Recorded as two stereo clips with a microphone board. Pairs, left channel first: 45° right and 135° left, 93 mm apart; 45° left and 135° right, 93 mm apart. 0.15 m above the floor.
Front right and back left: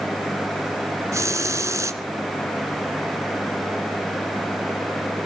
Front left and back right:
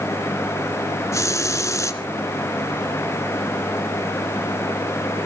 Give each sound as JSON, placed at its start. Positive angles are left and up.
{"t": 1.1, "sound": "a hiss", "azimuth_deg": 90, "distance_m": 1.1}